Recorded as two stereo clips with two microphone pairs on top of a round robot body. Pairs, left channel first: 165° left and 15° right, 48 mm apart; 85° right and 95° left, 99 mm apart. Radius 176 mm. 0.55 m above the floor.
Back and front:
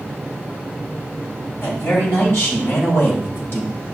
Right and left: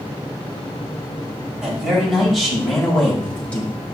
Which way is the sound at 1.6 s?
Straight behind.